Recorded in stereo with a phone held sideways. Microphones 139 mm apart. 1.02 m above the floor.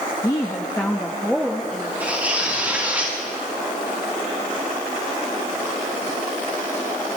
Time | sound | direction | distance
0.2 | a woman speaking | 30° left (ahead or behind) | 1.1 m
2.0 | tearing paper | 10° right (ahead or behind) | 6 m